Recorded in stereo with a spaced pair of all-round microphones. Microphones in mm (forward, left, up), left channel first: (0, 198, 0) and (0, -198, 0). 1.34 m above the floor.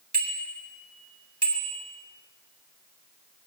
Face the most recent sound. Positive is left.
turn(degrees=-75)  # may be behind; listen again after turning